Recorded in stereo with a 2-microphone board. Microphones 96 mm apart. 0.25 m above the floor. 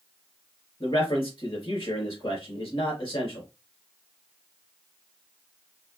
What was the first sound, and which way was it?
A man speaking, 60° left (ahead or behind).